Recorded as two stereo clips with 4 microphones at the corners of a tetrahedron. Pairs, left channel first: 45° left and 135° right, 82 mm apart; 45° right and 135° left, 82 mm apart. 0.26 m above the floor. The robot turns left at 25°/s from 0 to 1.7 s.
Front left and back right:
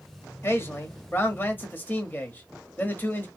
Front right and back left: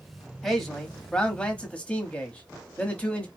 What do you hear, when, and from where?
0.4 s a man speaking: 40° left, 1.0 m; by 3.3 s 10° left, 1.0 m